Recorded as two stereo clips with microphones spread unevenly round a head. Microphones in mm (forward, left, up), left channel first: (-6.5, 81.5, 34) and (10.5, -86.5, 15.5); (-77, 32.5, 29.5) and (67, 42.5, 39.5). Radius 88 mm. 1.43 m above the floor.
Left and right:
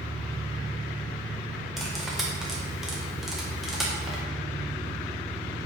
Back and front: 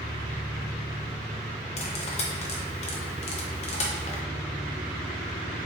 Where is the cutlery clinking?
Straight behind, 0.6 m.